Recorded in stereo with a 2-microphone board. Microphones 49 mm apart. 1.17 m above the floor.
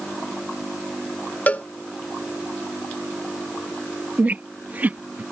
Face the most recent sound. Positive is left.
turn(degrees=-35)  # may be behind; listen again after turning